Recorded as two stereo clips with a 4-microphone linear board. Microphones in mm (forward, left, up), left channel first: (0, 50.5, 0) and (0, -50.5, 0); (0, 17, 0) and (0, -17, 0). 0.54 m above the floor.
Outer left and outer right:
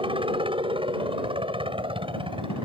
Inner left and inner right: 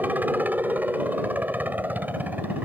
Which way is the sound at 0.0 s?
60° right (ahead or behind).